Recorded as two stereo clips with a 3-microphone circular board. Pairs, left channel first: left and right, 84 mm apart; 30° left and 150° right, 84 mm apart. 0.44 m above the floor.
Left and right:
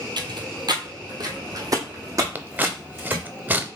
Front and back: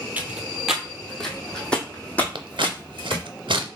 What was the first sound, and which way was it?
Footsteps, 80° right.